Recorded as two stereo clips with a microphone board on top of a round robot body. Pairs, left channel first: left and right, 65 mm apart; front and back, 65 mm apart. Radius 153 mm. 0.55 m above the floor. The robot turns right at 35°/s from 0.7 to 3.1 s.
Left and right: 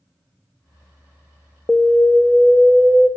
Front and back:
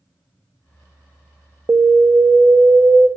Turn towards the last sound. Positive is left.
turn(degrees=-165)